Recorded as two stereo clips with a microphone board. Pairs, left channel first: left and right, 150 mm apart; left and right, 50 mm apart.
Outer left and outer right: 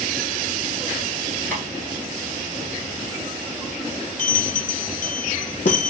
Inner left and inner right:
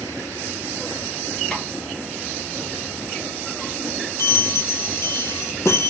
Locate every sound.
1.5 s tapping: 10° left (ahead or behind), 1.8 m
4.2 s a bell: 75° left (ahead or behind), 0.5 m